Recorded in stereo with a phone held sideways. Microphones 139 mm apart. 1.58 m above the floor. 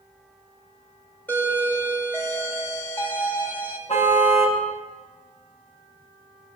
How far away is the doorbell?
About 4 m.